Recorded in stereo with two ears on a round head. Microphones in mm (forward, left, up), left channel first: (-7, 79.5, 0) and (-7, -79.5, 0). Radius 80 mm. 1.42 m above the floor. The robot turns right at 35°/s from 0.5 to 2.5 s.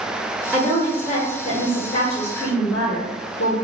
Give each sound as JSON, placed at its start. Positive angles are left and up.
{"t": 0.5, "sound": "a woman speaking", "azimuth_deg": -10, "distance_m": 0.6}